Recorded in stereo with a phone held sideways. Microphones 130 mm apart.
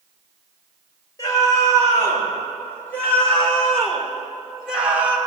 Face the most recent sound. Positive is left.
turn(degrees=-15)  # may be behind; listen again after turning